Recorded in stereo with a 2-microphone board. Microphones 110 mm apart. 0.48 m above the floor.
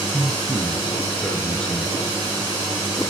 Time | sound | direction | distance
0.1 | a man speaking | 15° left (ahead or behind) | 8.5 m